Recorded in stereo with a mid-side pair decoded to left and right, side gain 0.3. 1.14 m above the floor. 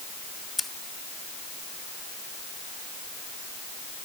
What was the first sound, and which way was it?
Scissors, 10° left.